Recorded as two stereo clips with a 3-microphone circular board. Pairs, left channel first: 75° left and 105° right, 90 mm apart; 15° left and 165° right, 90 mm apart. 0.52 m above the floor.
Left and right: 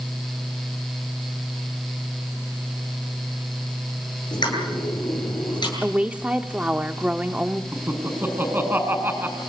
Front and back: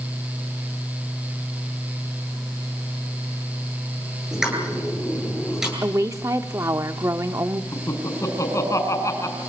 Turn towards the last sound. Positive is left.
turn(degrees=-40)